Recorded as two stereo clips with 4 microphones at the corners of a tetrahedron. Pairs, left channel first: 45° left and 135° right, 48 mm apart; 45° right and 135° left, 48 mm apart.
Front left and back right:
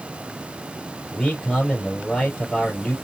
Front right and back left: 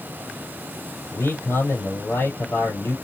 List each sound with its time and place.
1.1 s a man speaking: 30° right, 4 m